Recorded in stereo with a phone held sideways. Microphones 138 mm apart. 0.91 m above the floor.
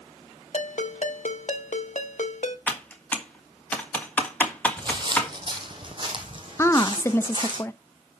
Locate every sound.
0.5 s a ringtone: 70° left (ahead or behind), 0.9 m
2.7 s typing on a keyboard: 15° left (ahead or behind), 1.5 m
4.8 s footsteps: 35° right (ahead or behind), 1.2 m; by 7.6 s 40° right (ahead or behind), 2.5 m
6.6 s a woman speaking: 20° left (ahead or behind), 0.6 m